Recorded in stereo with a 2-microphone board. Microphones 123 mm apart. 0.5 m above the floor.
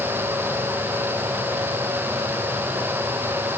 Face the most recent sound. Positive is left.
No sound to turn to.